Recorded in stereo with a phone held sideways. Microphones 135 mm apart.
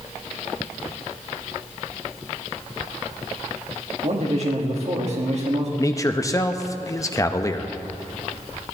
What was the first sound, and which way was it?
A man speaking, 50° right (ahead or behind).